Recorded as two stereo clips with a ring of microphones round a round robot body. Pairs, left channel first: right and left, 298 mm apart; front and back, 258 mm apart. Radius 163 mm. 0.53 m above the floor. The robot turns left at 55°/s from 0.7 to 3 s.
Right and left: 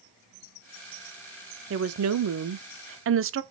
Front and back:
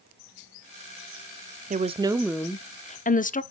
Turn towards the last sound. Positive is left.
turn(degrees=55)